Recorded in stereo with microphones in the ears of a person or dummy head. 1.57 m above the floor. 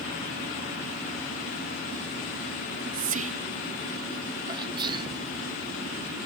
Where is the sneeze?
25° right (ahead or behind).